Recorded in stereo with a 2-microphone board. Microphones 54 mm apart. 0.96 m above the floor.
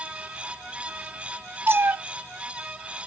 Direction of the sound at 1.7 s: 45° right (ahead or behind).